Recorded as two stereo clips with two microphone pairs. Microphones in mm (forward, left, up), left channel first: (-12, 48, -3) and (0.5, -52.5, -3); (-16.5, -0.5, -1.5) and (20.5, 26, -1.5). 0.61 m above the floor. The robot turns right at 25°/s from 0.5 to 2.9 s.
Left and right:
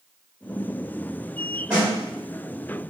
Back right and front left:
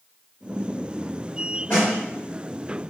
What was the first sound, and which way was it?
A snare drum, 145° right.